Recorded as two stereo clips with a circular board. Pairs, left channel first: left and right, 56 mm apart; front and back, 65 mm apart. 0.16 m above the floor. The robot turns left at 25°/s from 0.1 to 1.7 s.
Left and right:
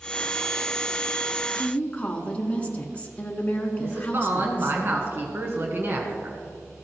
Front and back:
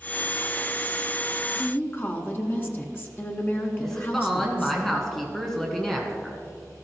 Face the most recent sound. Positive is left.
turn(degrees=-85)